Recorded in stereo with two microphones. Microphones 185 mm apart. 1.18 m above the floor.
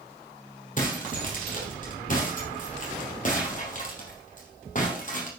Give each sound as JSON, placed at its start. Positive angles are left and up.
{"t": 0.8, "sound": "breaking glass", "side_deg": 45, "distance_m": 3.5}